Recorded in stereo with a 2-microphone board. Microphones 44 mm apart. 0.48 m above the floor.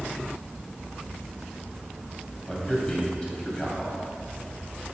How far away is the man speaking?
About 2.5 m.